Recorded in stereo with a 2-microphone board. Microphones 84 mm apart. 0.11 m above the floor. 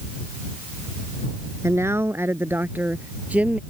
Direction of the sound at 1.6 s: 35° right (ahead or behind).